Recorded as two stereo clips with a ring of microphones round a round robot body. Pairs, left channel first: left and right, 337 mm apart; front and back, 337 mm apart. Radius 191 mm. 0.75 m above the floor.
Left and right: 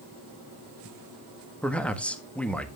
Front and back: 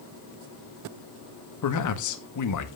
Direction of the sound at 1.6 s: 5° left.